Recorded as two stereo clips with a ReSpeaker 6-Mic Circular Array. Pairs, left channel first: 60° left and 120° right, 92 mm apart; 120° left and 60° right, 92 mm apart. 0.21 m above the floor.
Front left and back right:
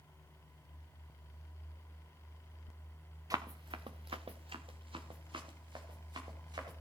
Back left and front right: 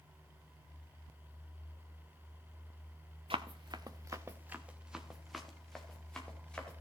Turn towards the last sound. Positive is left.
turn(degrees=-160)